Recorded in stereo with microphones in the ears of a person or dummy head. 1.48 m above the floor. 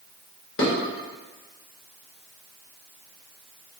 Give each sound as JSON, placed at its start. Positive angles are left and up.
{"t": 0.6, "sound": "dishes clattering", "side_deg": 70, "distance_m": 1.5}